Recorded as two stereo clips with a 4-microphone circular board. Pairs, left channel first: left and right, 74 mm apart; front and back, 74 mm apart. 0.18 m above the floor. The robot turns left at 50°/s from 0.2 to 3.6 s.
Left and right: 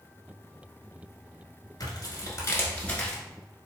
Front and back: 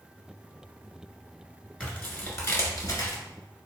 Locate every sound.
1.8 s tearing paper: 75° left, 1.5 m; by 3.2 s 5° left, 1.5 m